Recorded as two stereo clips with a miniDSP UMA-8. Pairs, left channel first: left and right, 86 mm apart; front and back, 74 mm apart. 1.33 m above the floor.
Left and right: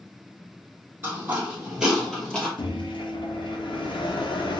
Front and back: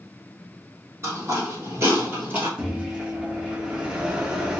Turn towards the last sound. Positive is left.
turn(degrees=105)